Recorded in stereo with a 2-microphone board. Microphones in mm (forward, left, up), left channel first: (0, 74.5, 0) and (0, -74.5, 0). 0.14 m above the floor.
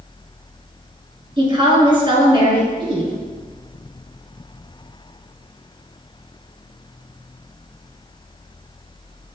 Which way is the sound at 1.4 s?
35° right (ahead or behind).